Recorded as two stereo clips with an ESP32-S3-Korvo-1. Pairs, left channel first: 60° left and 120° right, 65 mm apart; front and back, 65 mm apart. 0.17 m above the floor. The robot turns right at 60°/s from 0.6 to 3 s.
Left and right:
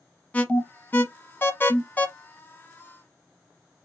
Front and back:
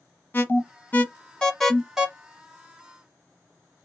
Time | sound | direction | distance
0.3 | an alarm | 15° left | 0.8 m